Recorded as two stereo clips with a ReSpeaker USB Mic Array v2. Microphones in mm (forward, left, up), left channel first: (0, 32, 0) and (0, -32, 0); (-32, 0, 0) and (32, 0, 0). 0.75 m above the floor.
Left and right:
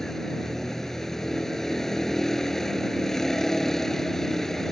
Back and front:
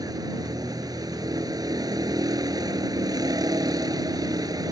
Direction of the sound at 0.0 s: 5° left.